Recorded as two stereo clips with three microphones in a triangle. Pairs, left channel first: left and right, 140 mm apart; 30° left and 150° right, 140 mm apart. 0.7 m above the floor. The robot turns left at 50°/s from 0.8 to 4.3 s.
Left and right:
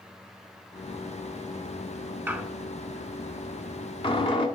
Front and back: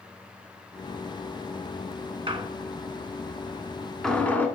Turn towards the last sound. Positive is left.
turn(degrees=100)